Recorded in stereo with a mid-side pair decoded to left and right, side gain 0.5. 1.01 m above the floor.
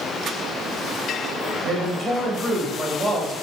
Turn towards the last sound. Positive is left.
turn(degrees=-15)